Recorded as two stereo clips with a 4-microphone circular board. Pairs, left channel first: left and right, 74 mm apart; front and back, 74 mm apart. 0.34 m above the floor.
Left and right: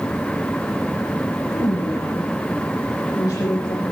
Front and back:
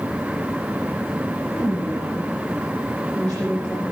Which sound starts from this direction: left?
A woman speaking, at 1.5 s.